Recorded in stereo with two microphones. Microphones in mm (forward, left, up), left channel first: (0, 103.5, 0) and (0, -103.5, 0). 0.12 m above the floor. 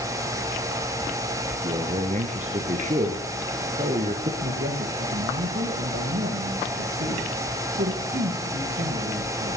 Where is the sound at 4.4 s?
60° right (ahead or behind), 4 m.